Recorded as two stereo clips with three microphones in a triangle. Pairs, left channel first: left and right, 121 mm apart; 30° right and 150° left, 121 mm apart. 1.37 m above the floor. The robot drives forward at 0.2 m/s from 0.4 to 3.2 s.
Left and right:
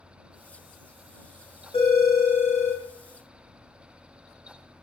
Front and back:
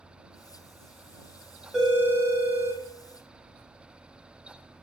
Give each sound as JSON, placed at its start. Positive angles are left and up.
{"t": 1.7, "sound": "a phone ringing", "azimuth_deg": 65, "distance_m": 1.1}